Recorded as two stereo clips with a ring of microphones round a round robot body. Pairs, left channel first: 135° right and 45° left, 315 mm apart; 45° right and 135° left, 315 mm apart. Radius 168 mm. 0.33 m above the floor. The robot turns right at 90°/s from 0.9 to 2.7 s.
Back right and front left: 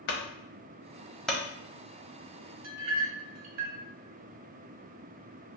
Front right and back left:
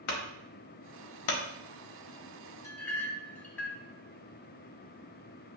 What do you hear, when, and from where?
0.1 s a clunk: 80° right, 0.9 m; by 1.4 s 35° right, 0.9 m
2.6 s a clink: 35° left, 1.2 m; by 3.8 s 40° left, 1.2 m